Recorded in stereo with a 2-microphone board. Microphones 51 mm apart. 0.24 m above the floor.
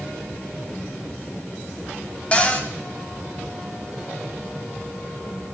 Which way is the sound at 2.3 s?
25° left (ahead or behind).